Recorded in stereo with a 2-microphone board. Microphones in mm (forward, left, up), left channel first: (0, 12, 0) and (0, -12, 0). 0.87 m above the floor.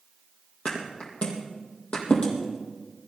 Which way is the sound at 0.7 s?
45° left (ahead or behind).